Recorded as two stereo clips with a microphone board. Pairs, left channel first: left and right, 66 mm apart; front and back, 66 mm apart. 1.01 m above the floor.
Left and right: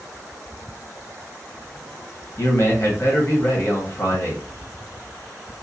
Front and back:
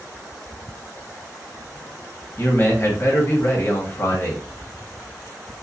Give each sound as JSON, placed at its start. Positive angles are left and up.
{"t": 2.4, "sound": "a man speaking", "azimuth_deg": 50, "distance_m": 1.0}